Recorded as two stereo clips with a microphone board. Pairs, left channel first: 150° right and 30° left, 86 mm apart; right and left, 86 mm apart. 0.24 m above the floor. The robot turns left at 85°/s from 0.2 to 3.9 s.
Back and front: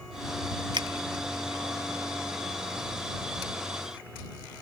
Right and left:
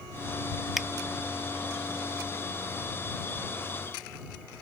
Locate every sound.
0.8 s a finger snap: 5° left; by 0.9 s 5° right